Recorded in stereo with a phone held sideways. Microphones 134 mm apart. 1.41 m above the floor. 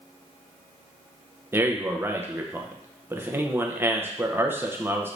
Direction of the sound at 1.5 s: 15° right (ahead or behind).